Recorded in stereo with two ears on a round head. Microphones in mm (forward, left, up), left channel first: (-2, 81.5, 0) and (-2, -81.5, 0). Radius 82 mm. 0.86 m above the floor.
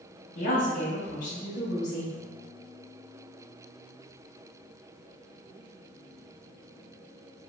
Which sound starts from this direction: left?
A woman speaking, at 0.3 s.